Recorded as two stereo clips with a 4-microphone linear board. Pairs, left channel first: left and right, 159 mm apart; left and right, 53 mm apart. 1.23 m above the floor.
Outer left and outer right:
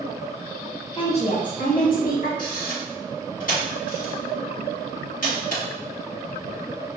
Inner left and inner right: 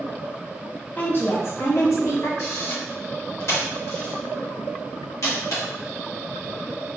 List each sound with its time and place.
1.0 s a woman speaking: 35° left (ahead or behind), 0.6 m; by 2.3 s 65° left (ahead or behind), 1.3 m
2.4 s a camera shutter: 60° left (ahead or behind), 1.2 m